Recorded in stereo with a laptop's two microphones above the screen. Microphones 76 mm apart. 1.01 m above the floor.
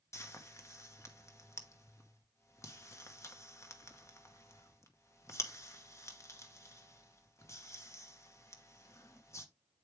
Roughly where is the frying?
Left.